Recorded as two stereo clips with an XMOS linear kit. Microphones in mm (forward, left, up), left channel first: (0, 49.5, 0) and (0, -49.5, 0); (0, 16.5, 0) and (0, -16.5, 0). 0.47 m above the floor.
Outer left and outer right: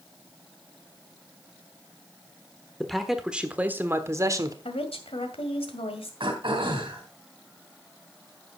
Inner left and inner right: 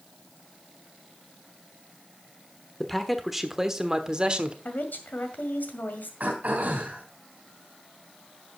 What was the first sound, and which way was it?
A man speaking, 5° left (ahead or behind).